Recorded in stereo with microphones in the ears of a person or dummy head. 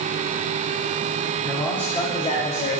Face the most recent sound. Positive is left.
turn(degrees=45)  # may be behind; listen again after turning